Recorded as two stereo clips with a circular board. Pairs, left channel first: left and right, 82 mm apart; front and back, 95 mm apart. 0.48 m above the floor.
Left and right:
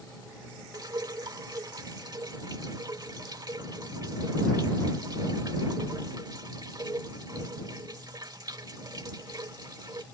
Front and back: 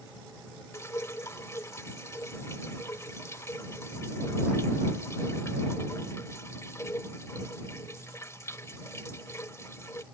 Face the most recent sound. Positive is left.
turn(degrees=-60)